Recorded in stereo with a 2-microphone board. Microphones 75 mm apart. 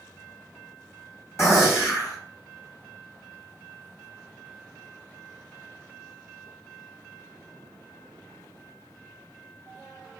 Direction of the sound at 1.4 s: 35° left (ahead or behind).